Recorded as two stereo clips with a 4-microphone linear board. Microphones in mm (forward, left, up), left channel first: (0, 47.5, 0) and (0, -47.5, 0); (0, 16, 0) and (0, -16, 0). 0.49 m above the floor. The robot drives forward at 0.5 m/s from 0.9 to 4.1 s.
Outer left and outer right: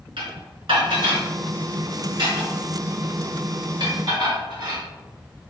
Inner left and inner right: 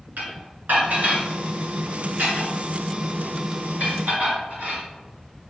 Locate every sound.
0.2 s dishes clattering: 75° right (ahead or behind), 3.5 m; by 4.8 s 55° right (ahead or behind), 4 m